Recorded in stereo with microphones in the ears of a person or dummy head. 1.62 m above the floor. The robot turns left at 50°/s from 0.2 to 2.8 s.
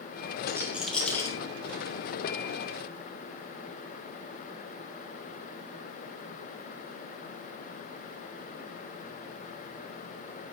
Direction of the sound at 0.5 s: 25° right (ahead or behind).